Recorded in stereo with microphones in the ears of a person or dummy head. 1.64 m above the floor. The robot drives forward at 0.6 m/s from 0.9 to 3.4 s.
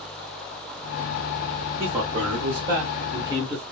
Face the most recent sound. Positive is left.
turn(degrees=-25)  # may be behind; listen again after turning